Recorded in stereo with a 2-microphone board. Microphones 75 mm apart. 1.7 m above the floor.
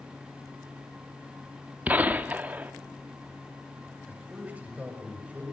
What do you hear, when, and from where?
1.9 s a gunshot: 20° right (ahead or behind), 1.2 m
4.1 s a man speaking: 15° right (ahead or behind), 7.5 m